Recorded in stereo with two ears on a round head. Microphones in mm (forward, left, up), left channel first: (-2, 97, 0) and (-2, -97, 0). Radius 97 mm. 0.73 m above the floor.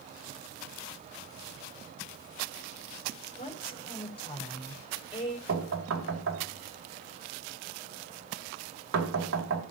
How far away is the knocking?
About 2.5 m.